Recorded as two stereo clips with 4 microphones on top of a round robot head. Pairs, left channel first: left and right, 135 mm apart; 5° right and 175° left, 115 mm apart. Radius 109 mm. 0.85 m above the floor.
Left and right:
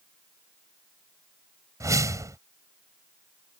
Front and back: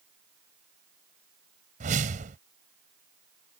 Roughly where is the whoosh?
Behind right.